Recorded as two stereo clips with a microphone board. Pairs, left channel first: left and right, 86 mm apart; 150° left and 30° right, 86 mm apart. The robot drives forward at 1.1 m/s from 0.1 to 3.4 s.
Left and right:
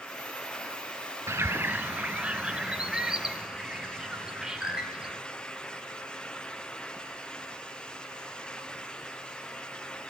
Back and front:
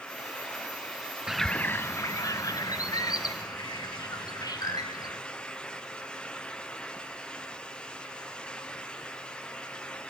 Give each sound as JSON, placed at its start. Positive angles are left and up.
{"t": 1.3, "sound": "a bird", "azimuth_deg": -105, "distance_m": 0.6}